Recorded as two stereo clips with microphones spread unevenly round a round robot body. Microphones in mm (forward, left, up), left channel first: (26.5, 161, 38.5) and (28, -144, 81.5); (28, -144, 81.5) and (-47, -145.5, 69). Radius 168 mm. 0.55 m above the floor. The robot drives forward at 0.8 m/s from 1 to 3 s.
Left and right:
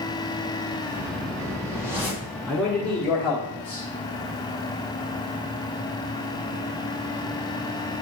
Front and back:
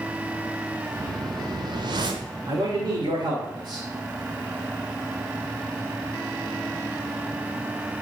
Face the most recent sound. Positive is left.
turn(degrees=170)